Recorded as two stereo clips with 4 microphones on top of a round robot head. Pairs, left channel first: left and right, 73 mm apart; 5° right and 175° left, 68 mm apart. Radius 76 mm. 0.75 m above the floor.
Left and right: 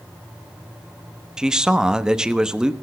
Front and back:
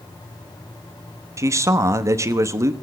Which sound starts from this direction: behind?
A man speaking, at 1.4 s.